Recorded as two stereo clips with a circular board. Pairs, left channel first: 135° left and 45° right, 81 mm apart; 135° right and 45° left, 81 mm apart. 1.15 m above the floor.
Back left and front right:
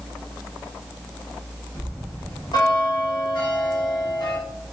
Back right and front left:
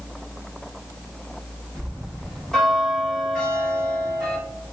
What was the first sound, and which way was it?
A bell, 145° left.